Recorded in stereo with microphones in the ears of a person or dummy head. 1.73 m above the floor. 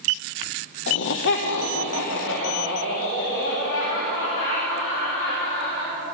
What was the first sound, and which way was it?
Laughter, 60° left (ahead or behind).